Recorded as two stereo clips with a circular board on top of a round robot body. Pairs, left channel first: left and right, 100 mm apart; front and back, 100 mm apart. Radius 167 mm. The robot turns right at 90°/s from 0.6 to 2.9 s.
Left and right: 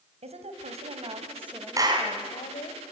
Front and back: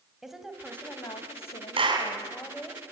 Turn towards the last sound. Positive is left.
turn(degrees=-50)